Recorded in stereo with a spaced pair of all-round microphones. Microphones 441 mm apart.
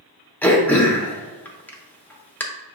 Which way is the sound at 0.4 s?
5° left (ahead or behind).